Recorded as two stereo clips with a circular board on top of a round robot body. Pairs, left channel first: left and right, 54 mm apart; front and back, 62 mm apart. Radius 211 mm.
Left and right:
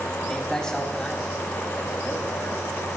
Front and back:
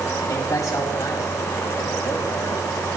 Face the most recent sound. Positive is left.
turn(degrees=30)